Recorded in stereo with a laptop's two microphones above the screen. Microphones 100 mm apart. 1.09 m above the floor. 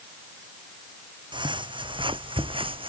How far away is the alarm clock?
I don't hear an alarm clock.